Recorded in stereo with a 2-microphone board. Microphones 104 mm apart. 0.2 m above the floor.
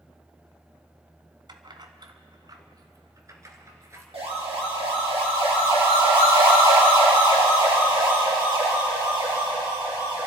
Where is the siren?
65° right (ahead or behind), 6 m; by 10.3 s 45° right (ahead or behind), 10 m.